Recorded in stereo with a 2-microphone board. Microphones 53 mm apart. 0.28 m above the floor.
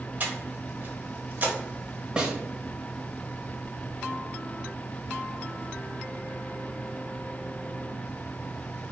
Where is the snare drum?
15° right (ahead or behind), 0.8 m.